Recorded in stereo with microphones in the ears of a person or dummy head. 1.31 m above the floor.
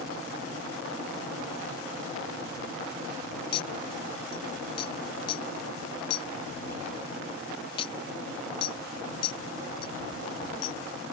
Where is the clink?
30° left (ahead or behind).